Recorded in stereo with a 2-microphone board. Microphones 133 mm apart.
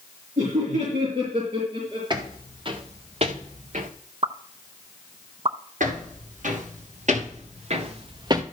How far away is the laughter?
About 5 m.